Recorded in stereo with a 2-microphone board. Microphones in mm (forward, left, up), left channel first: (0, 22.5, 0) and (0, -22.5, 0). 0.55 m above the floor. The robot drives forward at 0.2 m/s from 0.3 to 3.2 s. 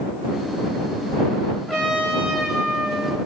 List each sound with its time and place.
1.7 s a trumpet: 10° left (ahead or behind), 1.1 m